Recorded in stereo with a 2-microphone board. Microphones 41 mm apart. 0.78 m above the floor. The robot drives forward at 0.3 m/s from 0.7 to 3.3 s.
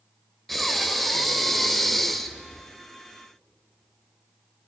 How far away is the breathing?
About 1.3 m.